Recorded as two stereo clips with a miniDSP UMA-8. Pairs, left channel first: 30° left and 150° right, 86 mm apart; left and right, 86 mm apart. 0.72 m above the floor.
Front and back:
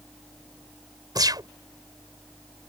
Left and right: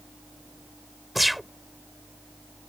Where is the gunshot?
Straight behind.